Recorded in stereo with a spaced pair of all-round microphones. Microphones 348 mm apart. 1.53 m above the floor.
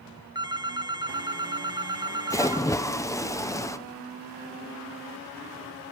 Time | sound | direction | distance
0.3 | a phone ringing | 10° right (ahead or behind) | 0.6 m
2.3 | a splash | 10° left (ahead or behind) | 1.0 m